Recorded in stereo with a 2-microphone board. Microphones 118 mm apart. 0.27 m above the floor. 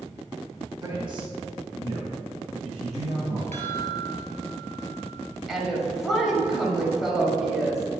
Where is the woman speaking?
5° right (ahead or behind), 1.3 m.